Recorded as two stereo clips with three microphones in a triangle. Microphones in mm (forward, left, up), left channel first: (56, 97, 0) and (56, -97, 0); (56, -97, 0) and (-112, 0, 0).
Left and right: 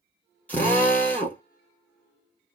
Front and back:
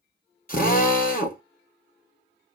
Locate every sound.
0.5 s a drill: 10° left, 2 m